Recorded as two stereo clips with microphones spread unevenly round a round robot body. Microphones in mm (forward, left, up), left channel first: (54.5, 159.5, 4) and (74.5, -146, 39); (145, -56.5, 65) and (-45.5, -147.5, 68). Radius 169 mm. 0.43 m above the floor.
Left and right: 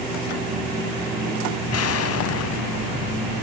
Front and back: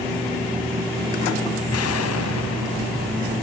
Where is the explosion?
50° left, 0.9 m.